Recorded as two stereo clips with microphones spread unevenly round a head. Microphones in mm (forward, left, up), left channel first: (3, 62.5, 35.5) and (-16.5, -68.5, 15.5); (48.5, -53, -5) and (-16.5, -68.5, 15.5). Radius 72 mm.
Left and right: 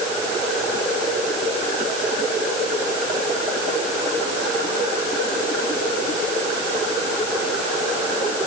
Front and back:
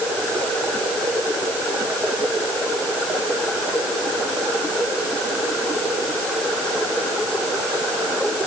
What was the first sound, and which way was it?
Only background noise.